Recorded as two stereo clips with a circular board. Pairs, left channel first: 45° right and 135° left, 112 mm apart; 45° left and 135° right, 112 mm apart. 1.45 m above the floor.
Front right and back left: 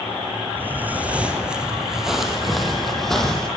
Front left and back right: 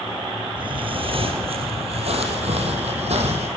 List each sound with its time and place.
0.6 s footsteps: 155° right, 2 m; by 3.5 s 130° right, 4 m